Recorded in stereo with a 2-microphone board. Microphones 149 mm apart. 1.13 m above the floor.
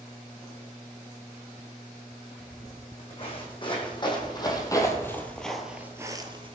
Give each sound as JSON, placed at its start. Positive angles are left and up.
{"t": 2.4, "sound": "footsteps", "side_deg": 40, "distance_m": 4.0}